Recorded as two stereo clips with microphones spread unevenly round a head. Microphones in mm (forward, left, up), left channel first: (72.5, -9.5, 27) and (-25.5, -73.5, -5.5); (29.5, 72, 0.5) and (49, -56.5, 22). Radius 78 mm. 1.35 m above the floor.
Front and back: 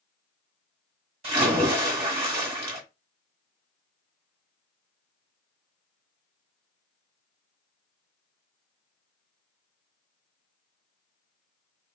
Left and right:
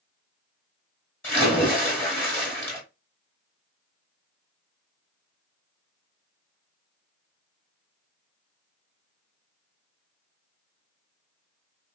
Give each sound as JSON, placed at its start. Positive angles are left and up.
{"t": 1.2, "sound": "a splash", "azimuth_deg": 170, "distance_m": 1.3}